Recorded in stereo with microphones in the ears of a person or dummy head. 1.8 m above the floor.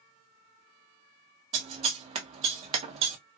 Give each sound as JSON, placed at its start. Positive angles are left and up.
{"t": 1.5, "sound": "scissors", "side_deg": -45, "distance_m": 0.6}